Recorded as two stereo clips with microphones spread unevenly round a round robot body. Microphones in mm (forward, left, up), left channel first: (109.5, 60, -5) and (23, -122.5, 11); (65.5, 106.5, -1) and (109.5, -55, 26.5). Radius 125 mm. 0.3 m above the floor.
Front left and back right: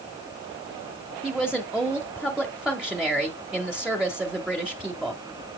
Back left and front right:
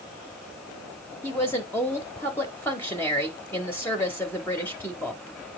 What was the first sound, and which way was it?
A woman speaking, 155° left.